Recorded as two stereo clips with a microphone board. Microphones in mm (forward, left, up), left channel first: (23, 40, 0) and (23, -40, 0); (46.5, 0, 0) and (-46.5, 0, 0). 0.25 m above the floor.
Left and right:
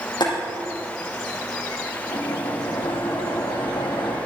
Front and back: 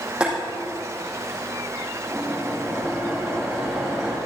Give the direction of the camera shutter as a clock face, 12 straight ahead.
No camera shutter in this recording.